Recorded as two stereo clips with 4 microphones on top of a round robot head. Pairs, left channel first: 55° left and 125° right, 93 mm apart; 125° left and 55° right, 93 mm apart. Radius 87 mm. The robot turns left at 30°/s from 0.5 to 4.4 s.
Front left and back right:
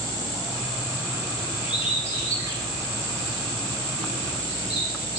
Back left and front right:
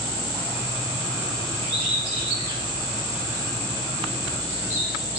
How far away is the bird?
About 7.5 m.